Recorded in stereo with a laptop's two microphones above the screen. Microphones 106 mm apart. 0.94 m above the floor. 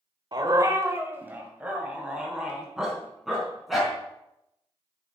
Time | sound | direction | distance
0.3 | a dog barking | 40° right (ahead or behind) | 1.4 m